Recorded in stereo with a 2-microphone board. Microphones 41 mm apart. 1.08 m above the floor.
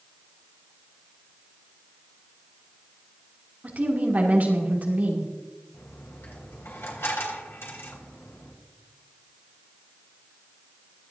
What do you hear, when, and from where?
3.6 s a woman speaking: 45° right (ahead or behind), 2.5 m
5.7 s a dropped coin: 85° left, 3.5 m